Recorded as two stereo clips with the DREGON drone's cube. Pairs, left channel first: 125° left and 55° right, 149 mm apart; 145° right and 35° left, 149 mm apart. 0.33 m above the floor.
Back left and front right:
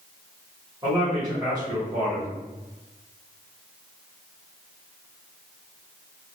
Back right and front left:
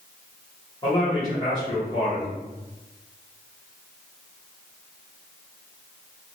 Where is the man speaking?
105° right, 1.8 m.